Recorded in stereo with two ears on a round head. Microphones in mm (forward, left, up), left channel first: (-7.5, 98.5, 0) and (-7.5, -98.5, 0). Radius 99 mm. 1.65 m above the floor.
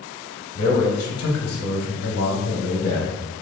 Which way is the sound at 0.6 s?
85° left.